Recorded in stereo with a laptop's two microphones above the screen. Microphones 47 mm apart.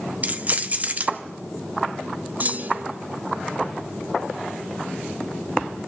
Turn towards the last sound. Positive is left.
turn(degrees=-40)  # may be behind; listen again after turning